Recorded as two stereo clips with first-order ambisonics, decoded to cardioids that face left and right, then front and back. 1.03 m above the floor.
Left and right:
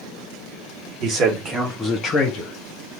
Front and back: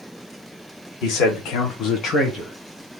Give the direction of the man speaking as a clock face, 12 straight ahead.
1 o'clock.